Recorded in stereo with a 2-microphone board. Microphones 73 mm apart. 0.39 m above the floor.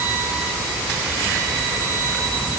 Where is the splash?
I don't hear a splash.